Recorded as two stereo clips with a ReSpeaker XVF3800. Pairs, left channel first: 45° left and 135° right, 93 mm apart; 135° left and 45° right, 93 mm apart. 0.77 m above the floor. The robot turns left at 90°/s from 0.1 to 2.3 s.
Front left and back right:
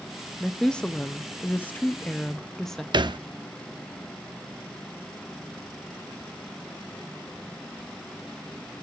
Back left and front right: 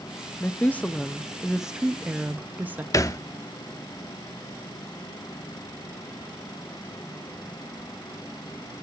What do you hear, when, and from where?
0.4 s a woman speaking: 140° left, 0.5 m; by 2.8 s 35° right, 0.5 m
2.9 s a thud: 170° right, 0.6 m